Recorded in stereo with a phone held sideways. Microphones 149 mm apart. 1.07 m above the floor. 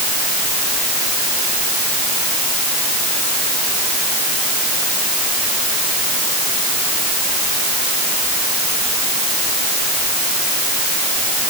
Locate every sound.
Only background noise.